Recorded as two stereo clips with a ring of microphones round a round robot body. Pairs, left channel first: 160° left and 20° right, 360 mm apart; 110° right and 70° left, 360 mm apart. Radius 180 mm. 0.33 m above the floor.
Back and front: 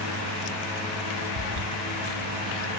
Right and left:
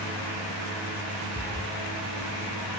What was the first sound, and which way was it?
A cat meowing, 25° right.